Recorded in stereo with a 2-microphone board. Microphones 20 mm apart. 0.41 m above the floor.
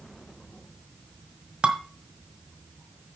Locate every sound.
1.6 s dishes clattering: 60° right (ahead or behind), 1.1 m